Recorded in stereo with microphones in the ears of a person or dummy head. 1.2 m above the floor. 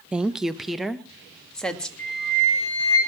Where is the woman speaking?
10° right (ahead or behind), 0.7 m; by 1.9 s centre (ahead or behind), 2 m.